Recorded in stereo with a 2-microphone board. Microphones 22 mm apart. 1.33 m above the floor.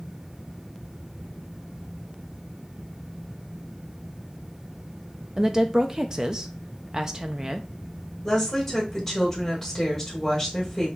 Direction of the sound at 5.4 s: 30° right (ahead or behind).